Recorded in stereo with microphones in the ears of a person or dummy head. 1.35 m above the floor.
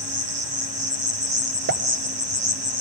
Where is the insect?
40° right (ahead or behind), 1.5 m.